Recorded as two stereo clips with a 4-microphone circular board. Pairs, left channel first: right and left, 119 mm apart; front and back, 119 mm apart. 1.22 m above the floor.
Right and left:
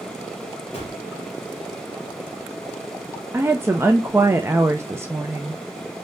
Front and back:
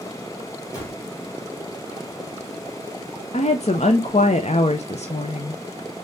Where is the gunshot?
60° right, 3 m.